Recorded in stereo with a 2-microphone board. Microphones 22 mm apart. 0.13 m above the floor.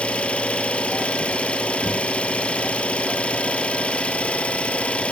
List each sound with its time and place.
0.0 s an engine running: 65° left (ahead or behind), 1.5 m